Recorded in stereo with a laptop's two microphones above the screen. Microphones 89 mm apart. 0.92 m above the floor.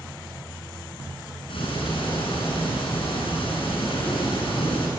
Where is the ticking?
80° left, 7.5 m.